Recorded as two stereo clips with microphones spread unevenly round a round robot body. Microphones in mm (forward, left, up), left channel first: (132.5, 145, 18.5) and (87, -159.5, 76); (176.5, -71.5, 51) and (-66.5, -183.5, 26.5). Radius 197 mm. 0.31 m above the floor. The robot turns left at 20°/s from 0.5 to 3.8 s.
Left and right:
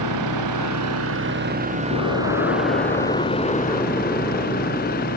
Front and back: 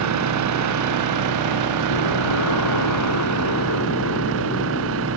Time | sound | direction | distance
0.0 | an engine running | 145° right | ?
1.9 | an explosion | 40° left | ?